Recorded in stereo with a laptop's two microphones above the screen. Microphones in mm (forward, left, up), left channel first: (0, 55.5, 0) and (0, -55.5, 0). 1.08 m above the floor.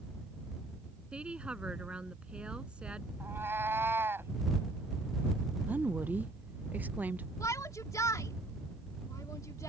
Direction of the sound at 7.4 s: 25° left (ahead or behind).